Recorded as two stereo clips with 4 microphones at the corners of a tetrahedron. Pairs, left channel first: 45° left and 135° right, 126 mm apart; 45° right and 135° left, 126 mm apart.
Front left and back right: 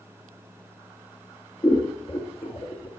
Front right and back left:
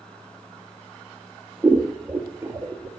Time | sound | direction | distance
1.6 | scissors | 65° left | 1.8 m